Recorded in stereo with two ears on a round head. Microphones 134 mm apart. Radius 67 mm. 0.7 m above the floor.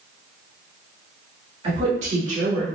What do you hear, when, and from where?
1.6 s a woman speaking: 40° right (ahead or behind), 1.6 m; by 2.7 s 60° right (ahead or behind), 2.0 m